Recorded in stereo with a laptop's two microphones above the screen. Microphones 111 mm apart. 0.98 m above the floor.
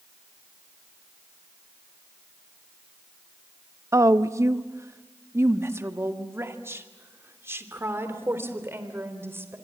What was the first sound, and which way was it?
A woman speaking, 30° right (ahead or behind).